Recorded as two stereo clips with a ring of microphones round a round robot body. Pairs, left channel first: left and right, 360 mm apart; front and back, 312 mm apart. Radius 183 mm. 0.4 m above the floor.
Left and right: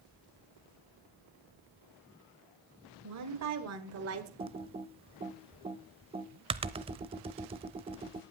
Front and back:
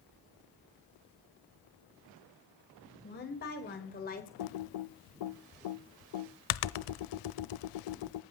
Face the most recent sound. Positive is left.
turn(degrees=-15)